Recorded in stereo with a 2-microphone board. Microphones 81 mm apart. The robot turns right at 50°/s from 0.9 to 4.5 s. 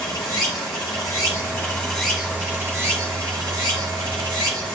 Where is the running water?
120° left, 3.5 m; by 4.8 s 60° right, 3.5 m.